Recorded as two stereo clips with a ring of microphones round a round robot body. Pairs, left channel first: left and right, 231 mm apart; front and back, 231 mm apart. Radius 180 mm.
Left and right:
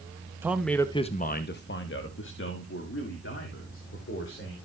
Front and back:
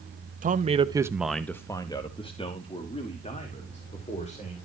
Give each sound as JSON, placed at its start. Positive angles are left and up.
{"t": 0.4, "sound": "a man speaking", "azimuth_deg": -165, "distance_m": 0.9}